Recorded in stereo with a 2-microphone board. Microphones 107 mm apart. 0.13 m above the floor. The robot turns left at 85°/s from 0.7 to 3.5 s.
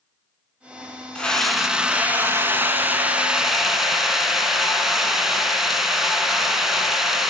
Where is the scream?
10° left (ahead or behind), 1.0 m; by 7.3 s 5° right (ahead or behind), 1.0 m.